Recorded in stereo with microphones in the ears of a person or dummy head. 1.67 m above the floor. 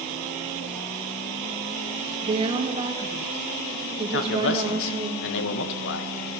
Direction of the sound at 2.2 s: 25° right (ahead or behind).